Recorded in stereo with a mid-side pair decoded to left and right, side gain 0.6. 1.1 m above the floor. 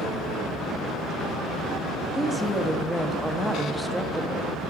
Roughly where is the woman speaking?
Ahead.